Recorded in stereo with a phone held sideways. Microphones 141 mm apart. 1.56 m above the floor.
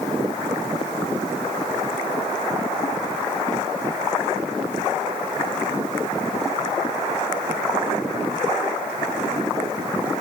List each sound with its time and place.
Only background noise.